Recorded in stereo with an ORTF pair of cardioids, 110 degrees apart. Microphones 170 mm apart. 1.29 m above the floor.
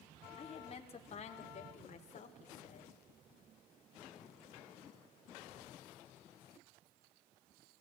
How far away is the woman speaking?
About 4 m.